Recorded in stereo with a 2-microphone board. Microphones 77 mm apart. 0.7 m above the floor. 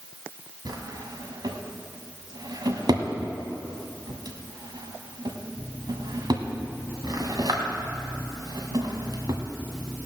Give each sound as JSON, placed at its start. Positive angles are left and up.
{"t": 0.7, "sound": "a drawer", "side_deg": -65, "distance_m": 1.6}